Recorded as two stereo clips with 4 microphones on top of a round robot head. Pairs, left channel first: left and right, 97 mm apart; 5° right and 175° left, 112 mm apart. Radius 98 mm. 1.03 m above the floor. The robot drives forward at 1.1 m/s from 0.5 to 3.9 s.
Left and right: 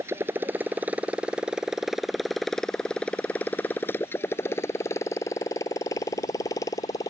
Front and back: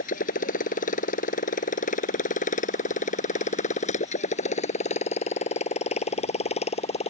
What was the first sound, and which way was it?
A motorcycle, 20° right.